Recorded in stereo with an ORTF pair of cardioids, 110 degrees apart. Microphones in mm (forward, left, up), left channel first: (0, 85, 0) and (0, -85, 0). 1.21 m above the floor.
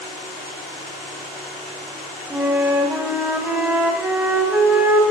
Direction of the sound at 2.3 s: 5° right.